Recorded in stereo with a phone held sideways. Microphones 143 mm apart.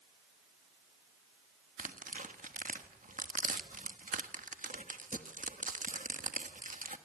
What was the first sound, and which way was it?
Tearing paper, 65° right (ahead or behind).